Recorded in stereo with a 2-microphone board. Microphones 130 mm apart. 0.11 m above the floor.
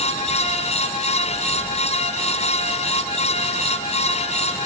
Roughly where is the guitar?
I don't hear a guitar.